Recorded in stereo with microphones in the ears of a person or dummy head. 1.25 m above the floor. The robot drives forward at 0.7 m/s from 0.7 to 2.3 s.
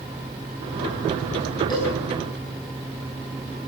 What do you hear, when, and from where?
1.7 s a cowbell: 25° left (ahead or behind), 8 m